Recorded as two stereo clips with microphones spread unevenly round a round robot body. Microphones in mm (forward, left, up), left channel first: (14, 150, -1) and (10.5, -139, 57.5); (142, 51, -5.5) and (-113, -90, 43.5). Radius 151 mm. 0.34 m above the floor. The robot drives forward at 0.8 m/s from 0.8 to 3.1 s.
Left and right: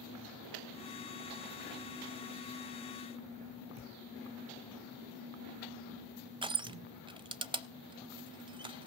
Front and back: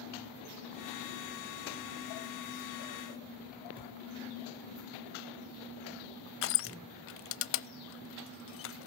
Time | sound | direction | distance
3.8 | a thud | 80° right | 6.5 m
6.4 | crushing | 15° right | 0.5 m